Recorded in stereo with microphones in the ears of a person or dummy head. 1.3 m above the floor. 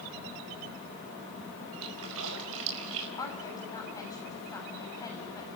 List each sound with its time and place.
1.8 s a splash: 80° right, 5 m
3.2 s a woman speaking: 25° left (ahead or behind), 6.5 m